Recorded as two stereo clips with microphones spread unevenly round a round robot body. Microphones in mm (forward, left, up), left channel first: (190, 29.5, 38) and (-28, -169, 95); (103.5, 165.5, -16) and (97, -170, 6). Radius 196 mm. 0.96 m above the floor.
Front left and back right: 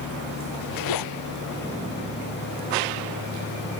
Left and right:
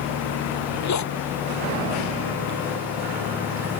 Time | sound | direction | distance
0.5 | a zipper | 50° left | ?